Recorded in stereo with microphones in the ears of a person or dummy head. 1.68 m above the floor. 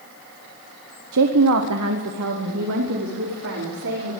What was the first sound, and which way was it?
A woman speaking, 70° right (ahead or behind).